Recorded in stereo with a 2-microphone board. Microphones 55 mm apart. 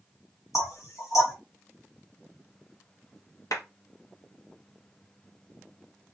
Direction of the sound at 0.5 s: 65° left (ahead or behind).